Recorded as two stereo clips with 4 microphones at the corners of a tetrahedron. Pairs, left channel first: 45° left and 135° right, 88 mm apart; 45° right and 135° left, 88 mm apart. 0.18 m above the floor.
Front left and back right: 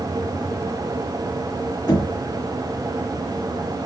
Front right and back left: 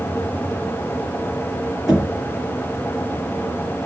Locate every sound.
1.9 s knocking: 50° left, 2 m